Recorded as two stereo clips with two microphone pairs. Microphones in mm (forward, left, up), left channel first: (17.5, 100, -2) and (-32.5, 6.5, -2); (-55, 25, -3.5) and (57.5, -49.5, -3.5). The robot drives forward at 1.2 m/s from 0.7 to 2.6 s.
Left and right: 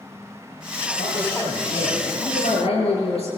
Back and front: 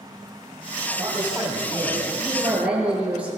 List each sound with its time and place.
1.0 s a man speaking: 40° left, 9.5 m; by 3.3 s 50° left, 8.5 m